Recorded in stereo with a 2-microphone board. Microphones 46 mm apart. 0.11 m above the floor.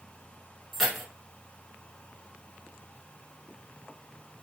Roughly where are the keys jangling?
Centre.